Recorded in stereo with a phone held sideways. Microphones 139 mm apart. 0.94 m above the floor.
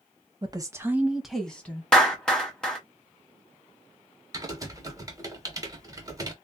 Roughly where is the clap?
Centre.